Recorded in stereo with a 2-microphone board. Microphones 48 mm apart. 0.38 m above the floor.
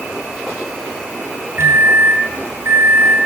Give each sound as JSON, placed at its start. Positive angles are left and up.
{"t": 1.6, "sound": "a microwave", "side_deg": -50, "distance_m": 1.6}